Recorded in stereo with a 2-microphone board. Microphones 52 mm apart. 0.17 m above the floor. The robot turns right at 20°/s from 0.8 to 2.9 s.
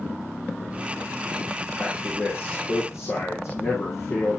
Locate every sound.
1.8 s a man speaking: 35° left (ahead or behind), 8.5 m; by 4.4 s 55° left (ahead or behind), 8.5 m